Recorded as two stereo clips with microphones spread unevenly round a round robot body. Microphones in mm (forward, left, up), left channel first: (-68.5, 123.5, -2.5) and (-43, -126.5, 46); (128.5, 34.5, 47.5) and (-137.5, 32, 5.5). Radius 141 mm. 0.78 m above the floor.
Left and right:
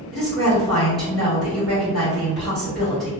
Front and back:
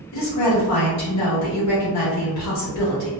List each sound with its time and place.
0.1 s a woman speaking: 15° left, 1.3 m